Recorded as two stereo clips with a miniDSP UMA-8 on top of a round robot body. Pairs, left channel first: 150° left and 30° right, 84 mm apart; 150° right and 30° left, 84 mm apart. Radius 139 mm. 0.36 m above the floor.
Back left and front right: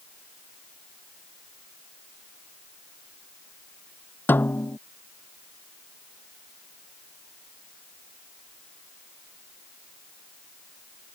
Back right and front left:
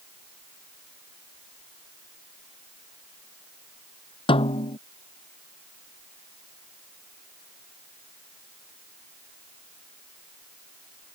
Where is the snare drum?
140° right.